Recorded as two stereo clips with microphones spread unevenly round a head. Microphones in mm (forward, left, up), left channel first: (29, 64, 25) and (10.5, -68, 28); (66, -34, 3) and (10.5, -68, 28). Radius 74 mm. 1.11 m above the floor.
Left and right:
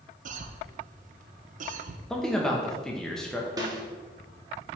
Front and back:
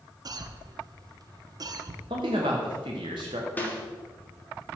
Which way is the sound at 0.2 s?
115° right.